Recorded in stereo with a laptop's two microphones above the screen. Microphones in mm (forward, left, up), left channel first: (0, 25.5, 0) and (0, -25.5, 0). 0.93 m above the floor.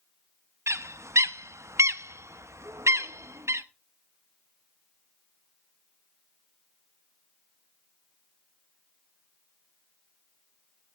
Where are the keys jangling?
No keys jangling in this recording.